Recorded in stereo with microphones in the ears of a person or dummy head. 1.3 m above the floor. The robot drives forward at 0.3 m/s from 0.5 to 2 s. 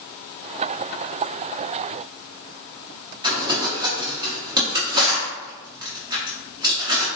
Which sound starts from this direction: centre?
Crumpling, at 3.2 s.